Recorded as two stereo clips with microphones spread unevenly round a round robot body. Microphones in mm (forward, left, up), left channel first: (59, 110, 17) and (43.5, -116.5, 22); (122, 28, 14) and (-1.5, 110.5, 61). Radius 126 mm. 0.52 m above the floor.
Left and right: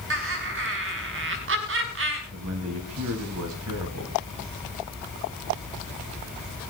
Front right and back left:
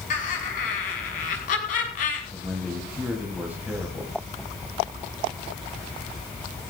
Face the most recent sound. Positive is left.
turn(degrees=-125)